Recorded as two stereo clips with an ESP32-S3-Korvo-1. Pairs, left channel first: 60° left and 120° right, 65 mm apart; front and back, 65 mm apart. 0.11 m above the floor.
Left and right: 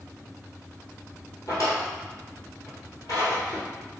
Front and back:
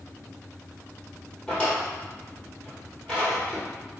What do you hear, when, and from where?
1.5 s a drawer: 75° left, 1.3 m